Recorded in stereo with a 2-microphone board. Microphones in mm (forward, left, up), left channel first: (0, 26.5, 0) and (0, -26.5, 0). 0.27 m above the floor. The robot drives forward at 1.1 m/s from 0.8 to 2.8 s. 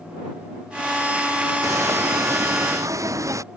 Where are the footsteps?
70° right (ahead or behind); by 3.4 s 75° right (ahead or behind).